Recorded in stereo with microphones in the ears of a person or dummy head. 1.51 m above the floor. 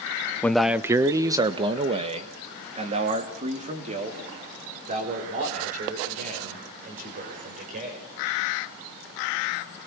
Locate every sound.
0.4 s a man speaking: 10° left (ahead or behind), 0.6 m; by 8.0 s 45° right (ahead or behind), 6.5 m